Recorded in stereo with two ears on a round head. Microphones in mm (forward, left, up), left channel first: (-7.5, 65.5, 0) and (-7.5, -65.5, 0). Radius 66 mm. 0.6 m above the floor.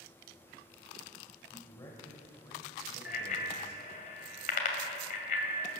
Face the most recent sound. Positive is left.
turn(degrees=60)  # may be behind; listen again after turning